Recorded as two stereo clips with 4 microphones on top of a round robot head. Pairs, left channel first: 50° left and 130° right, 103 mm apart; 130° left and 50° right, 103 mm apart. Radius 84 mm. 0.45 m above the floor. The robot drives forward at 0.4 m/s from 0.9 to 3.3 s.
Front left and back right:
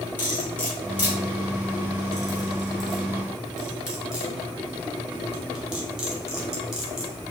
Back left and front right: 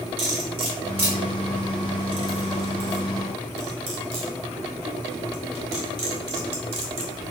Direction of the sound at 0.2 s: 25° right.